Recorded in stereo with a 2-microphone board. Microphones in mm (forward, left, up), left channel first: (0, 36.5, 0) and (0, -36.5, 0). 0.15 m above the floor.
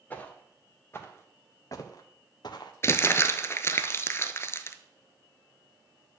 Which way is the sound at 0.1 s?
20° left (ahead or behind).